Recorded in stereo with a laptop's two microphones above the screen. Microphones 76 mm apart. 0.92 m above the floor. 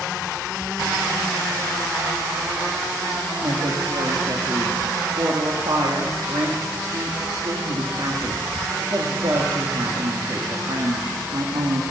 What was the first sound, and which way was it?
A woman speaking, 70° right (ahead or behind).